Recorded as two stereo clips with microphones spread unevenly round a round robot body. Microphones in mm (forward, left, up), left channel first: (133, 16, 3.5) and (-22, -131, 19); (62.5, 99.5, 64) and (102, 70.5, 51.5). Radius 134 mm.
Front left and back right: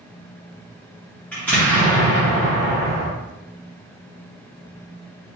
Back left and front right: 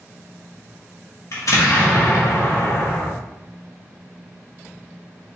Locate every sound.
1.3 s an explosion: 125° left, 1.4 m